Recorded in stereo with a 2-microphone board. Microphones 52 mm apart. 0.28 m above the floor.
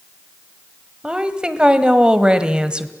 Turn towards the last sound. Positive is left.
turn(degrees=-15)  # may be behind; listen again after turning